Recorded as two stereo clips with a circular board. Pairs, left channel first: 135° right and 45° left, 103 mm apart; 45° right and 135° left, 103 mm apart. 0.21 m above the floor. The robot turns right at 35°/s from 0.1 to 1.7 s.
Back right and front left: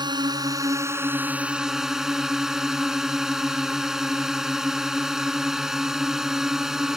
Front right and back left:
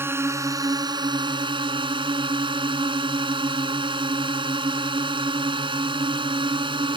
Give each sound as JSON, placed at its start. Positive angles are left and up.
{"t": 0.0, "sound": "a drone", "azimuth_deg": 75}